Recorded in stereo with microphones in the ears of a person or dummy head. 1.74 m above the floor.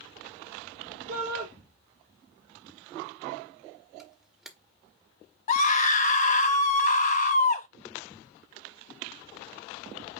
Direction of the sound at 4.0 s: 5° right (ahead or behind).